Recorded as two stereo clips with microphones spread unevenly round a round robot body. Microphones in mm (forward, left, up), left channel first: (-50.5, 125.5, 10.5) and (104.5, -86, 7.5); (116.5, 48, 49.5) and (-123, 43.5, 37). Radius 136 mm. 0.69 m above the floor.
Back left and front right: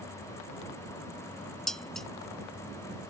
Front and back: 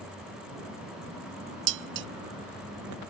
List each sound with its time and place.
1.7 s dishes clattering: 145° right